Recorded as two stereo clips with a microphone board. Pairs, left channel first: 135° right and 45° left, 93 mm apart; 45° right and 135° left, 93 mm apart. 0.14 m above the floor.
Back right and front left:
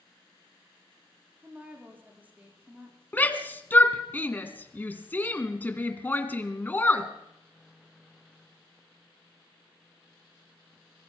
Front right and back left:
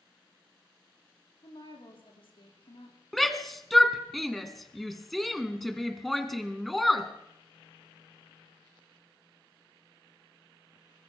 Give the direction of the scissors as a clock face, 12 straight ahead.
No scissors in this recording.